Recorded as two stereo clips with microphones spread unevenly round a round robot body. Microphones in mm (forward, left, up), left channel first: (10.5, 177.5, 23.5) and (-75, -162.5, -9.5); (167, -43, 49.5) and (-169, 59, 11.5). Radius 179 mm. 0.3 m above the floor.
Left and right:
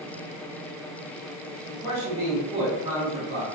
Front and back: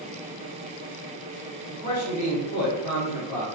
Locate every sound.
1.7 s a man speaking: 20° right, 1.1 m; by 3.5 s 40° right, 1.8 m